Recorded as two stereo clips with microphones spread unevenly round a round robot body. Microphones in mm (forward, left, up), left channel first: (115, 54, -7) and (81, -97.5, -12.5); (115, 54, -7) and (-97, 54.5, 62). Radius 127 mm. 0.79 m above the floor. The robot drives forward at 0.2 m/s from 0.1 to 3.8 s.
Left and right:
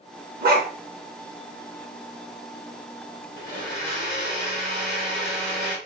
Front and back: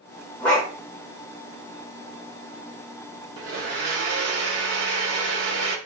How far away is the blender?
About 1.3 m.